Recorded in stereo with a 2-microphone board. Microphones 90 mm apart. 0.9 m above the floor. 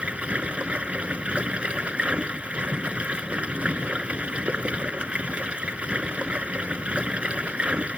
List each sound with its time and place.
0.0 s running water: 15° right (ahead or behind)